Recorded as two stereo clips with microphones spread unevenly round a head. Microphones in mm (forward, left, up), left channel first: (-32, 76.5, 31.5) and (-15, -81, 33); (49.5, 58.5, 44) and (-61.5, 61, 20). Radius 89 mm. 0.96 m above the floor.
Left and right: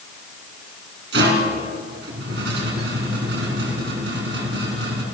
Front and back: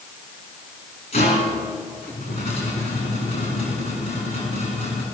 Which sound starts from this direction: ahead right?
A rattle, at 1.1 s.